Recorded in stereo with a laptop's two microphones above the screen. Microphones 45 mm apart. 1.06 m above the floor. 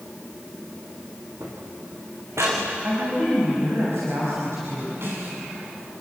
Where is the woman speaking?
70° right (ahead or behind), 6 m.